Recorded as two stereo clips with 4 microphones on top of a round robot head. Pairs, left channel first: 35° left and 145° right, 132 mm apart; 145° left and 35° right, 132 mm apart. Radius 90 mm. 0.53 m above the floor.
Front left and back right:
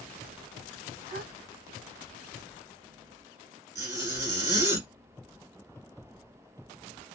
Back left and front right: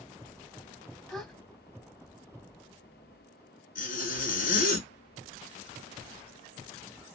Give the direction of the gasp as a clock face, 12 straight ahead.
4 o'clock.